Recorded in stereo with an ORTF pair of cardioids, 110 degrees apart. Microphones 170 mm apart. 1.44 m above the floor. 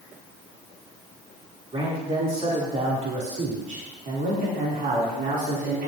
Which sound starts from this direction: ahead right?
A man speaking, at 1.7 s.